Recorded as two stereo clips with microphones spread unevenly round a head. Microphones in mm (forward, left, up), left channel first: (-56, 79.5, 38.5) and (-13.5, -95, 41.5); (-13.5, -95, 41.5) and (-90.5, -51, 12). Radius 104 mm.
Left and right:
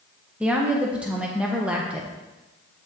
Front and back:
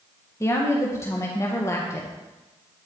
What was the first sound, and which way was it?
A woman speaking, 5° left.